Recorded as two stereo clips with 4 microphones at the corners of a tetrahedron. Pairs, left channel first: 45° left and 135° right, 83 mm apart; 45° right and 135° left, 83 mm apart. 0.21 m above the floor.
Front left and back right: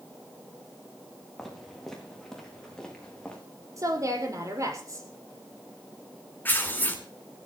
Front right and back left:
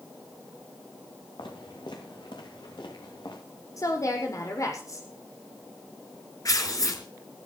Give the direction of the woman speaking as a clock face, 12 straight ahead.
3 o'clock.